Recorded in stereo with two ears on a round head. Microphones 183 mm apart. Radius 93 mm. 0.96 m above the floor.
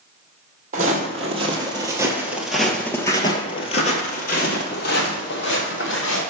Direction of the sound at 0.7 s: 40° right (ahead or behind).